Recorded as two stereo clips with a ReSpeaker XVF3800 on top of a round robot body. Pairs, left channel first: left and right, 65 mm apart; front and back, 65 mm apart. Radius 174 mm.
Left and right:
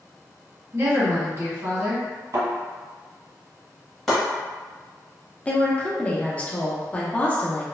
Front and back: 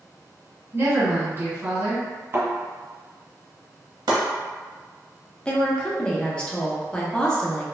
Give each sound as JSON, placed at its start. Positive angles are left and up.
{"t": 0.7, "sound": "a woman speaking", "azimuth_deg": -130, "distance_m": 1.6}
{"t": 2.3, "sound": "a thud", "azimuth_deg": -125, "distance_m": 1.3}
{"t": 4.1, "sound": "chopping", "azimuth_deg": 180, "distance_m": 0.9}
{"t": 5.5, "sound": "a woman speaking", "azimuth_deg": 55, "distance_m": 0.9}